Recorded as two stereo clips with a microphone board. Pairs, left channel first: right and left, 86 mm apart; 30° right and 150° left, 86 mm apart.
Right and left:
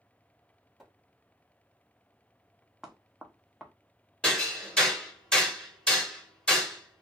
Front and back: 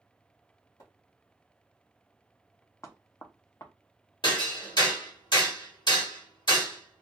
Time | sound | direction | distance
0.8 | a splash | 5° right | 1.4 m
2.8 | knocking | 5° left | 0.6 m
4.2 | hammering | 10° right | 1.3 m